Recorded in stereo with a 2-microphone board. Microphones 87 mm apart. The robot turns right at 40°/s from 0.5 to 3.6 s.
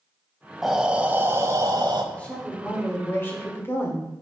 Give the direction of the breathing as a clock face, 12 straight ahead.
6 o'clock.